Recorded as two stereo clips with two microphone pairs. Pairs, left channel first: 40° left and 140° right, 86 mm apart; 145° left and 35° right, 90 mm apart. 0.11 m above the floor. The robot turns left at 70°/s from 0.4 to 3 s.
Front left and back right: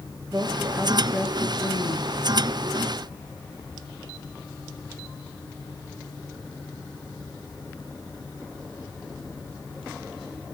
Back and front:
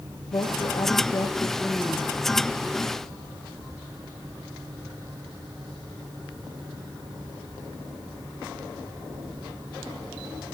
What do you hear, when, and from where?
0.3 s a woman speaking: 165° left, 2.5 m; by 2.1 s 45° left, 2.5 m